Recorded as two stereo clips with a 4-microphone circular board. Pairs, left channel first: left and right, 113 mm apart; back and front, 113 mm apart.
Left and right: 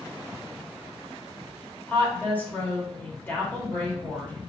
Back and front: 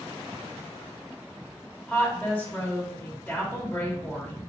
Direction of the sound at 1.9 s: 130° left.